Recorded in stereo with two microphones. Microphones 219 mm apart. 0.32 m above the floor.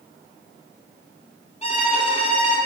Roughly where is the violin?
Left.